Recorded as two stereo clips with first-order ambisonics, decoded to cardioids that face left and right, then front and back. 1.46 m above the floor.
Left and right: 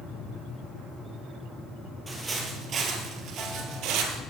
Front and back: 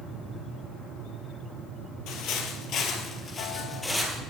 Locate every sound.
2.1 s footsteps: 15° right, 2.5 m; by 4.2 s 90° right, 2.5 m